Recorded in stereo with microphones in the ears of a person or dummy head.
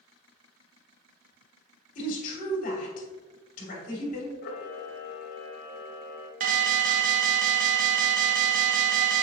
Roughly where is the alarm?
Right.